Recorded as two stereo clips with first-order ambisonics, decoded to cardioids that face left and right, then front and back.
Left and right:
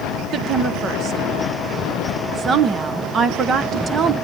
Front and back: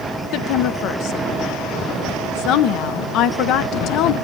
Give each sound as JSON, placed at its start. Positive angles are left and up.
{"t": 0.3, "sound": "a woman speaking", "azimuth_deg": -30, "distance_m": 0.7}